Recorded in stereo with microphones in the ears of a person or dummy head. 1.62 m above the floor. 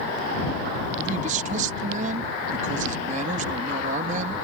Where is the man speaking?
50° right (ahead or behind).